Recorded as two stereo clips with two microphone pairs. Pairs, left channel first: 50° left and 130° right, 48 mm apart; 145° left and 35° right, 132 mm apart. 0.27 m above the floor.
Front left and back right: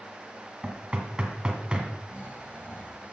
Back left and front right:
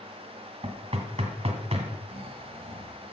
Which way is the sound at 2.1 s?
5° left.